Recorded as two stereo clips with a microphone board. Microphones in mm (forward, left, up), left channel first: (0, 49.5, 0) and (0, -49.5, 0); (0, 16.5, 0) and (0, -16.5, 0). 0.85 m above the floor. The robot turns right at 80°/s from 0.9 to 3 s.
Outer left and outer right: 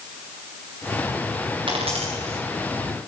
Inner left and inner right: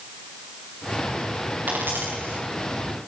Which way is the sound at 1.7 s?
55° right (ahead or behind).